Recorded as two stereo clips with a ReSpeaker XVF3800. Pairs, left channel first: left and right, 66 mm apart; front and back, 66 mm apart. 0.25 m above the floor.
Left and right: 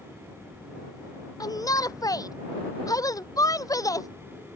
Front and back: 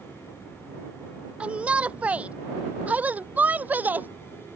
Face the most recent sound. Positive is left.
turn(degrees=115)